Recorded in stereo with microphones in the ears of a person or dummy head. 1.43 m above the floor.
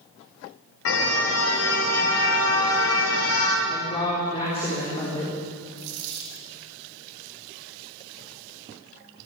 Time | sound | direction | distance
0.8 | a car horn | 75° left (ahead or behind) | 3.5 m
3.7 | a woman speaking | 30° left (ahead or behind) | 4 m
5.8 | a dropped coin | 65° right (ahead or behind) | 3.5 m